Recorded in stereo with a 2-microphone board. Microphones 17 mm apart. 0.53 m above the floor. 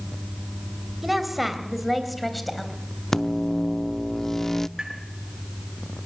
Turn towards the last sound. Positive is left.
turn(degrees=-40)  # may be behind; listen again after turning